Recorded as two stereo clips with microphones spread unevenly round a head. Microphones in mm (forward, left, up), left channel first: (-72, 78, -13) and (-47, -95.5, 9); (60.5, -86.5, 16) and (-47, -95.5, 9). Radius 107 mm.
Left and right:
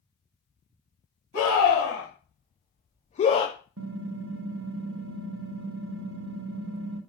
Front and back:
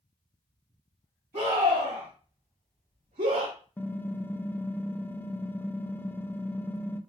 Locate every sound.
1.3 s a scream: 130° left, 1.5 m; by 3.5 s 170° left, 0.5 m
3.8 s typing on a keyboard: 70° right, 0.5 m